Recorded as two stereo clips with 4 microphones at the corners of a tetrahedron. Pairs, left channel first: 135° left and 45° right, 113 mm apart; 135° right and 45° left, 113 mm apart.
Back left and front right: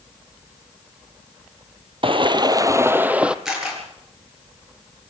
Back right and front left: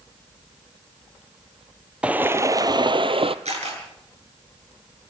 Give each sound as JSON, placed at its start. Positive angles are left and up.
{"t": 2.0, "sound": "footsteps", "azimuth_deg": -30, "distance_m": 0.8}
{"t": 3.5, "sound": "a camera shutter", "azimuth_deg": 40, "distance_m": 8.5}